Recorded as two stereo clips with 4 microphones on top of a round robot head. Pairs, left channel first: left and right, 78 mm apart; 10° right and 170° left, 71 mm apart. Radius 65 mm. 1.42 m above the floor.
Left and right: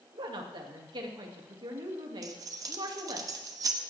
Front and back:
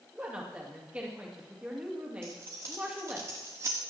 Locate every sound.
0.1 s a woman speaking: 115° right, 2.5 m
2.2 s keys jangling: 125° right, 1.0 m